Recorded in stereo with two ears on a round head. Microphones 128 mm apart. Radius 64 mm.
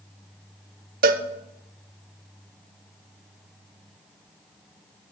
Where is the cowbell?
65° right (ahead or behind), 0.6 m.